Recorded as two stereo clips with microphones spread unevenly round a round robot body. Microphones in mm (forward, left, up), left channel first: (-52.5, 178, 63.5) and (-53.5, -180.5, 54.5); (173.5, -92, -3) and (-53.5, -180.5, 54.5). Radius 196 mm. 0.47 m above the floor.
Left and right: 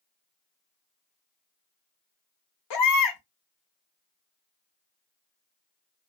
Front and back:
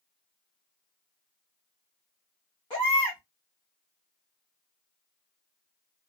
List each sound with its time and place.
2.7 s a baby crying: 90° left, 1.1 m